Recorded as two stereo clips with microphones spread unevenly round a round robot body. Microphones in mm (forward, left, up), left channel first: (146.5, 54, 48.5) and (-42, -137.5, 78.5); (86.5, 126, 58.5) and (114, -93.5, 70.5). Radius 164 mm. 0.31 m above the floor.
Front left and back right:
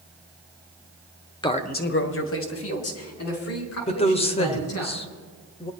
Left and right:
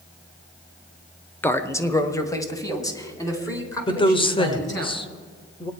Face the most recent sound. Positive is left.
turn(degrees=65)